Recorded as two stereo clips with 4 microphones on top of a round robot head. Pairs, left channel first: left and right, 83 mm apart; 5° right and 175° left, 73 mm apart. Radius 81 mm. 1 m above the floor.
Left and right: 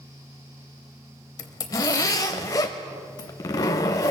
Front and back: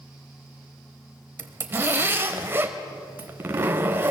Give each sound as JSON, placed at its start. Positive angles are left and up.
{"t": 1.4, "sound": "a zipper", "azimuth_deg": 125, "distance_m": 1.0}